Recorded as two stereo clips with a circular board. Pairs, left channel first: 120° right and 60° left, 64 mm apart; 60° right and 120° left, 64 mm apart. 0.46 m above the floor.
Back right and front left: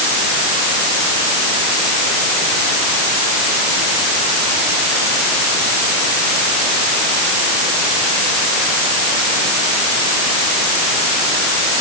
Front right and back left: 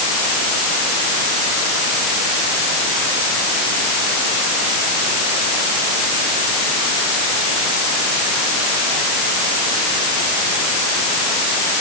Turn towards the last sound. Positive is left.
No sound to turn to.